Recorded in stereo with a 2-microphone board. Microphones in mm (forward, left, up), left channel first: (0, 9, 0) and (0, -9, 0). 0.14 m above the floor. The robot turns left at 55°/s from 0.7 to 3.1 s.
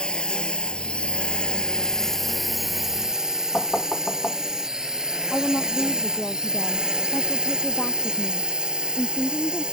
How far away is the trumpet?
No trumpet in this recording.